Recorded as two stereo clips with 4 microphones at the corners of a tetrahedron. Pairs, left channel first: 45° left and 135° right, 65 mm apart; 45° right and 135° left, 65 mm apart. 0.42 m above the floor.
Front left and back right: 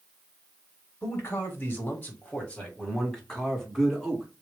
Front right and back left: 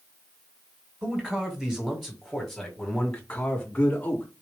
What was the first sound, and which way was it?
A man speaking, 65° left.